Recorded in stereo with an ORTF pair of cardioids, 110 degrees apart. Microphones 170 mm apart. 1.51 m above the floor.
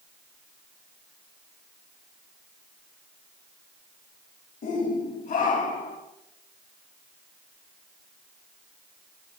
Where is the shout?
50° left, 2.5 m; by 6.0 s 55° left, 3.5 m.